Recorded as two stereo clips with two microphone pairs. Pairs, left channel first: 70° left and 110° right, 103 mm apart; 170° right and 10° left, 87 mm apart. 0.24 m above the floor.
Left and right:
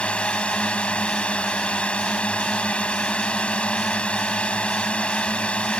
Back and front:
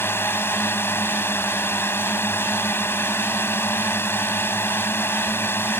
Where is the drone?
145° left.